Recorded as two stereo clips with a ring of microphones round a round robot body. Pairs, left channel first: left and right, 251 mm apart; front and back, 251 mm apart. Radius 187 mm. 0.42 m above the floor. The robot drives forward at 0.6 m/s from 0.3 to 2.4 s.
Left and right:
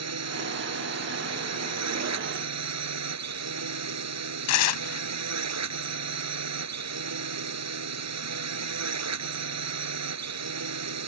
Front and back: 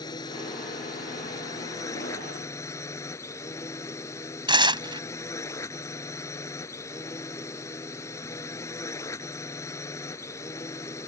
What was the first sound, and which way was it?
A drone, 80° right.